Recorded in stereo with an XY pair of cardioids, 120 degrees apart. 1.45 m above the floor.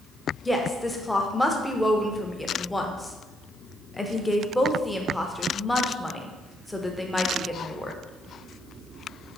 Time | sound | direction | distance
0.5 | a woman speaking | 10° left | 0.6 m